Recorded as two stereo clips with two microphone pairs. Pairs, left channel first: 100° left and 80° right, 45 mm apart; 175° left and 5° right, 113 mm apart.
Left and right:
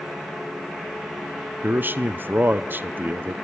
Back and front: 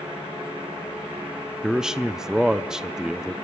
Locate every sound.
1.6 s a man speaking: 90° right, 0.6 m